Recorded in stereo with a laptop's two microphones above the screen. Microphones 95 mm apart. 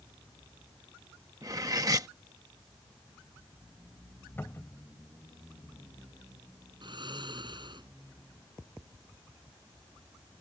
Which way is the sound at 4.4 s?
25° left (ahead or behind).